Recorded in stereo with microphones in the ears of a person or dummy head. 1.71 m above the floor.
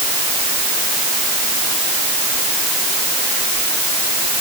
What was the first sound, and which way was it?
Only background noise.